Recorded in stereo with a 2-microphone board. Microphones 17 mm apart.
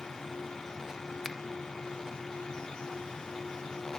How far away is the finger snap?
About 1.2 m.